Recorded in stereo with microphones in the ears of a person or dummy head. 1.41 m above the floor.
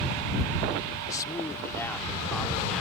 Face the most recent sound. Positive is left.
turn(degrees=0)  # may be behind; listen again after turning